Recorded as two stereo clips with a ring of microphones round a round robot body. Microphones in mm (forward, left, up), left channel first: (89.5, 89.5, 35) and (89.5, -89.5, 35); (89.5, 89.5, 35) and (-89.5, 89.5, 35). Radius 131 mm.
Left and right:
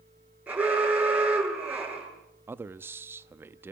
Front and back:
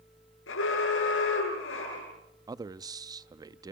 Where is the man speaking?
150° right, 0.6 m.